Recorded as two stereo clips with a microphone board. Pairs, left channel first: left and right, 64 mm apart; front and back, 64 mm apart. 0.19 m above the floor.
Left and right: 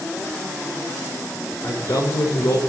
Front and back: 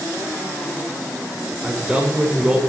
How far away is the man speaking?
About 6.5 m.